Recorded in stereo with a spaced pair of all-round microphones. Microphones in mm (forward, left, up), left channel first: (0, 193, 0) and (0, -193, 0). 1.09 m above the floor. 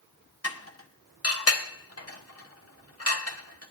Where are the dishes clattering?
40° left (ahead or behind), 1.3 m.